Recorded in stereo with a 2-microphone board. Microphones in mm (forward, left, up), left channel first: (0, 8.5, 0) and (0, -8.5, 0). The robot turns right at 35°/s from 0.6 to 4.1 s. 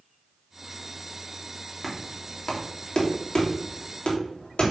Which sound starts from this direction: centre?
Knocking, at 1.8 s.